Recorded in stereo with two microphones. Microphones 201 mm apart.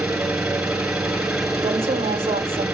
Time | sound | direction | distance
0.0 | an engine running | 5° right (ahead or behind) | 6.5 m
1.6 | a woman speaking | 25° right (ahead or behind) | 1.0 m